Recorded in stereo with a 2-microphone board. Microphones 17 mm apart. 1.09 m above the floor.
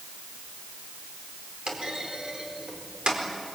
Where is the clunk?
80° right, 4 m.